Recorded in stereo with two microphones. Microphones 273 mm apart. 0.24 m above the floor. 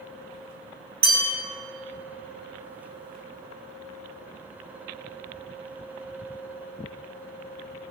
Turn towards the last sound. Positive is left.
turn(degrees=-70)  # may be behind; listen again after turning